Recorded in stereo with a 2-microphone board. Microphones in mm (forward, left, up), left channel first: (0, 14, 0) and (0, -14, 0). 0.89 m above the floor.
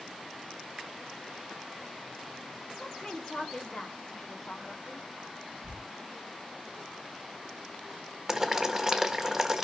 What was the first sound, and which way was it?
A woman speaking, 35° left (ahead or behind).